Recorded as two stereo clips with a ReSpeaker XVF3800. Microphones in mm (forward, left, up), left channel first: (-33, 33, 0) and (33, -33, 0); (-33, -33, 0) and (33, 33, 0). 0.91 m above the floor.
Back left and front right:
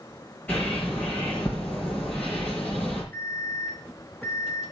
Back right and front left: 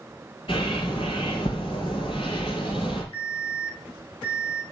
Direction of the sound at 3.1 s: 155° right.